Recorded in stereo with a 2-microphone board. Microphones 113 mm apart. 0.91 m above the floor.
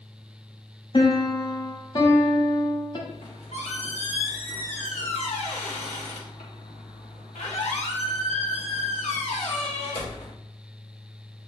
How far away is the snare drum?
I don't hear a snare drum.